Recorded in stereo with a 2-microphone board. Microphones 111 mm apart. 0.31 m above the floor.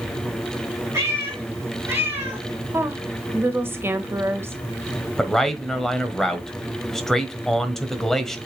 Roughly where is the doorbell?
No doorbell in this recording.